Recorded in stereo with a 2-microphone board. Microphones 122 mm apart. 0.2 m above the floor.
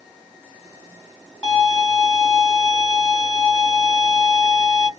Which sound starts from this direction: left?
A violin, at 1.4 s.